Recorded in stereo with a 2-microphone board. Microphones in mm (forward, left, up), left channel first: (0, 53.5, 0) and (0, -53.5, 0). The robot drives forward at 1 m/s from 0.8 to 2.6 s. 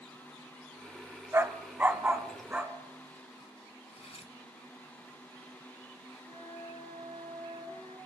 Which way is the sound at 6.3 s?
65° right (ahead or behind).